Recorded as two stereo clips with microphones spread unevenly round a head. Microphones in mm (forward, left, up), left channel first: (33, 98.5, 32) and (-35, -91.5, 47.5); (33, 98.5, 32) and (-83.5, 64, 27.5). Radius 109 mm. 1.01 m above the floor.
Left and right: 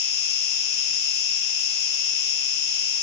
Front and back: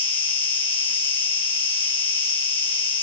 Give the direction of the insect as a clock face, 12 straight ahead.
10 o'clock.